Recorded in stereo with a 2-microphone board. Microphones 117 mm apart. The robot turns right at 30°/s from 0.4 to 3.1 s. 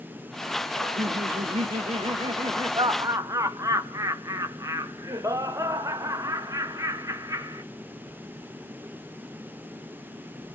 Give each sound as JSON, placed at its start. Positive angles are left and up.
{"t": 0.8, "sound": "laughter", "azimuth_deg": -100, "distance_m": 1.0}